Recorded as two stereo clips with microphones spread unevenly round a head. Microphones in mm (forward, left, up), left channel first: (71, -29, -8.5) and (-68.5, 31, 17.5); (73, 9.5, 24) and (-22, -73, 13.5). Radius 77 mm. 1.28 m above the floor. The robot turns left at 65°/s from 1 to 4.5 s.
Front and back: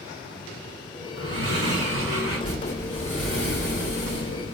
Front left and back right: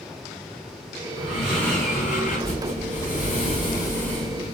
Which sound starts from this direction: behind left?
Breathing, at 1.2 s.